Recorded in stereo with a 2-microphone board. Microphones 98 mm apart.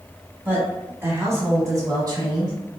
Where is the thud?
No thud in this recording.